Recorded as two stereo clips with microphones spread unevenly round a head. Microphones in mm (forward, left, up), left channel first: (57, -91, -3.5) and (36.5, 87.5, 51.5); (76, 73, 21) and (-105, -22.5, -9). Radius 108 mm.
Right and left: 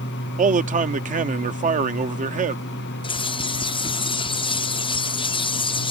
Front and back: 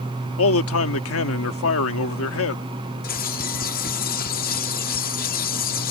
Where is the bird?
15° right.